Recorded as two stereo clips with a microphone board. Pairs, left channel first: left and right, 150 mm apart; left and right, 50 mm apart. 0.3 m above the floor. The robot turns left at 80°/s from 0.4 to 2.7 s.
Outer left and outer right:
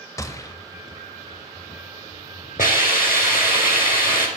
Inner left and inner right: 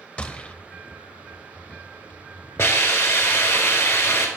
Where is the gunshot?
20° left (ahead or behind), 0.5 m; by 0.6 s 25° left (ahead or behind), 0.5 m.